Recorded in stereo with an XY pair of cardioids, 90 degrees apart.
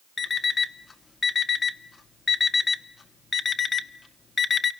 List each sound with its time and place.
0.2 s an alarm clock: 45° left, 1.3 m